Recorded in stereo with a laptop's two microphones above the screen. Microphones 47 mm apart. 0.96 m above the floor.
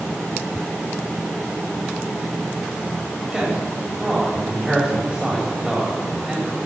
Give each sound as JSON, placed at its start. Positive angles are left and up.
{"t": 3.3, "sound": "a man speaking", "side_deg": -10, "distance_m": 4.5}